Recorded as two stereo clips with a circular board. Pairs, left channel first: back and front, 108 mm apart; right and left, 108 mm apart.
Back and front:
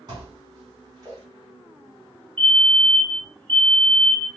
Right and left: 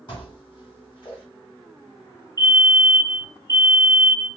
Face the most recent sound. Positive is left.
turn(degrees=-105)